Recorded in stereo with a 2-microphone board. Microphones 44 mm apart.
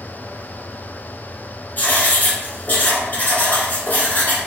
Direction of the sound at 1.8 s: 45° left (ahead or behind).